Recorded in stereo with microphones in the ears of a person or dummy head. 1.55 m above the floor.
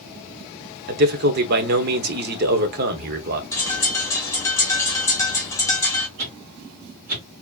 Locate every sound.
0.9 s a man speaking: 50° right (ahead or behind), 1.0 m
3.5 s a bird: 15° left (ahead or behind), 2 m
6.2 s a whoosh: 45° right (ahead or behind), 1.9 m